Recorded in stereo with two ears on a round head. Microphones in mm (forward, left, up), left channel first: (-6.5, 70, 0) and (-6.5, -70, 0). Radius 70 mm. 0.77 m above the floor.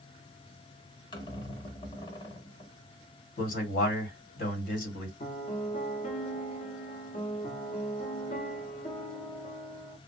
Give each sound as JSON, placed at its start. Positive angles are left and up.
{"t": 1.1, "sound": "a squeak", "side_deg": 30, "distance_m": 0.8}
{"t": 3.4, "sound": "a man speaking", "side_deg": 55, "distance_m": 1.6}
{"t": 5.2, "sound": "a piano", "side_deg": 45, "distance_m": 0.7}